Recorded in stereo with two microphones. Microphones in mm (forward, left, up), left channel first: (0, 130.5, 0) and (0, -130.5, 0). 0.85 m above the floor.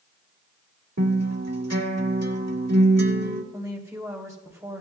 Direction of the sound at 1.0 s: 70° right (ahead or behind).